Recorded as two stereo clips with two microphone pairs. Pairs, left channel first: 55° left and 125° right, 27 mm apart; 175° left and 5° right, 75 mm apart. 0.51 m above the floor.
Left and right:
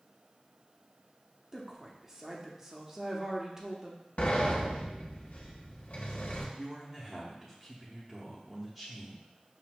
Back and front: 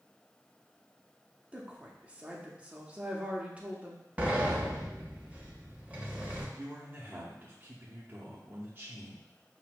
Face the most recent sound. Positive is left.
turn(degrees=-45)